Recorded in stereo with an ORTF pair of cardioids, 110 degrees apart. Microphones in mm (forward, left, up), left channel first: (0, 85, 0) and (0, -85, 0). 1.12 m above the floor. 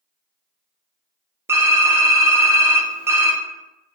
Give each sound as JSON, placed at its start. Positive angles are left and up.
{"t": 1.5, "sound": "typing on a keyboard", "azimuth_deg": -15, "distance_m": 0.5}